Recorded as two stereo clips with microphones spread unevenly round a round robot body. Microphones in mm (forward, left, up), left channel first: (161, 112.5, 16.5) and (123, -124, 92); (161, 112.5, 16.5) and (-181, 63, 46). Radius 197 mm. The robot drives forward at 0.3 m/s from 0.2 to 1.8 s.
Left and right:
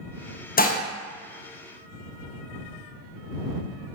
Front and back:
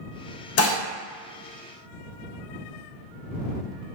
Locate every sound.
0.6 s dishes clattering: 45° left, 0.6 m; by 0.8 s 55° left, 0.5 m